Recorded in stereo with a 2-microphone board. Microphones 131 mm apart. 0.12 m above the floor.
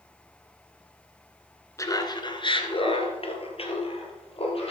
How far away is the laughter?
About 1.3 m.